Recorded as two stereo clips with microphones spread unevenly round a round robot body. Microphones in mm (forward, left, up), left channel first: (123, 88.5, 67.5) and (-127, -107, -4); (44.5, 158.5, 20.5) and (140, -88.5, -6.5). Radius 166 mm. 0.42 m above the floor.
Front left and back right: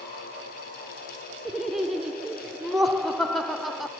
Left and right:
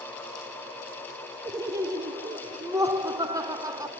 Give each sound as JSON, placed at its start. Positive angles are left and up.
{"t": 1.4, "sound": "laughter", "azimuth_deg": -95, "distance_m": 0.7}